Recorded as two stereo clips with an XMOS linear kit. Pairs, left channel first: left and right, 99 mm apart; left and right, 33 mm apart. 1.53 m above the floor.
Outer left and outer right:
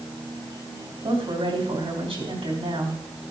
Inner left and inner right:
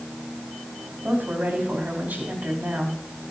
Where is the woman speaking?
65° right (ahead or behind), 3.5 m.